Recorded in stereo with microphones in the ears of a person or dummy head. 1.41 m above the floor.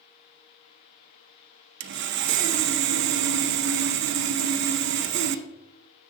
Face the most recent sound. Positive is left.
turn(degrees=-55)  # may be behind; listen again after turning